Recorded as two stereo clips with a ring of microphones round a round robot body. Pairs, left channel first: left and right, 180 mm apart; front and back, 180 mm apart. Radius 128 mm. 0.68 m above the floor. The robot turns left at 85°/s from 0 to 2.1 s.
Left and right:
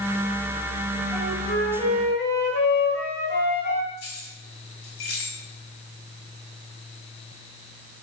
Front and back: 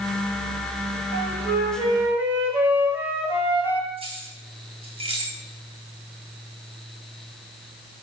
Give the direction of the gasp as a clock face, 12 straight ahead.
No gasp in this recording.